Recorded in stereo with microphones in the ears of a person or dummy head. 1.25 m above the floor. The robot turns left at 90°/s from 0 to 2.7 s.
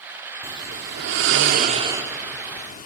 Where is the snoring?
20° right, 1.4 m; by 2.9 s 135° left, 1.4 m.